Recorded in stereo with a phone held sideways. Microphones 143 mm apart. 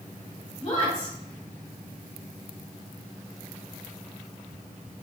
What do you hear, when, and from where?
0.6 s a woman speaking: 50° left (ahead or behind), 1.9 m